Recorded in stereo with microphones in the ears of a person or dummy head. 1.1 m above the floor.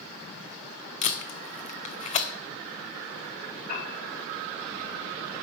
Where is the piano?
55° left (ahead or behind), 4 m.